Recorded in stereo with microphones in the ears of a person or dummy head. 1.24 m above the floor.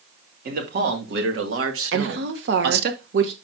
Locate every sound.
0.5 s a man speaking: 50° right (ahead or behind), 2.5 m; by 2.9 s 60° right (ahead or behind), 1.5 m
1.9 s a woman speaking: 60° right (ahead or behind), 1.2 m